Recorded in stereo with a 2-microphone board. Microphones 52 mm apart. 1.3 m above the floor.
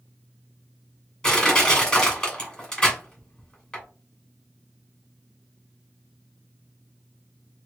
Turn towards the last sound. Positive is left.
turn(degrees=15)  # may be behind; listen again after turning